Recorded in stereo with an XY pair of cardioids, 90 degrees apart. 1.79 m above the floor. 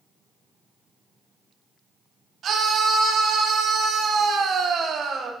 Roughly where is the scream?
Ahead right.